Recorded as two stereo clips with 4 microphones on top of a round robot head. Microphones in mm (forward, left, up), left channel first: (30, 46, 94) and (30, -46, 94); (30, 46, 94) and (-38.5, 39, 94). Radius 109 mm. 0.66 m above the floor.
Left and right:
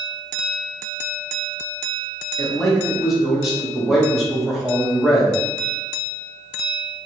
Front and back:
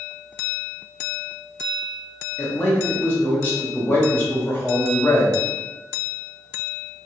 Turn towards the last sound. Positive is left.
turn(degrees=-10)